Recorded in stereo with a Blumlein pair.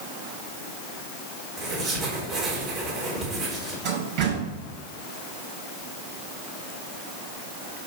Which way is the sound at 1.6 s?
25° right.